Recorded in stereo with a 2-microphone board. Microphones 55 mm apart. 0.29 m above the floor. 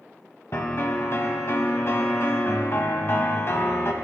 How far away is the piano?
About 0.9 m.